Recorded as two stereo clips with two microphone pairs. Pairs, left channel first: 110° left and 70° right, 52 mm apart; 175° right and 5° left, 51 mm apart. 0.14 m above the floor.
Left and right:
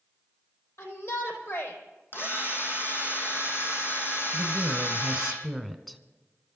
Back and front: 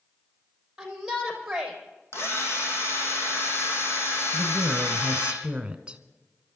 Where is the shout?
85° left, 5.5 m.